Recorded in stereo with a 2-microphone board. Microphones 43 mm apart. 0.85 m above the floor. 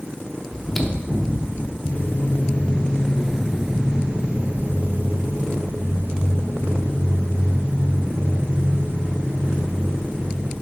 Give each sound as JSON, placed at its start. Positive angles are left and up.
{"t": 0.5, "sound": "chewing", "side_deg": 5, "distance_m": 0.7}
{"t": 1.9, "sound": "footsteps", "side_deg": 50, "distance_m": 1.2}